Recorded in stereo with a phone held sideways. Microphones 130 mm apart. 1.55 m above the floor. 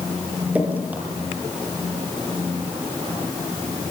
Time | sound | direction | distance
0.6 | dripping | 10° right (ahead or behind) | 6 m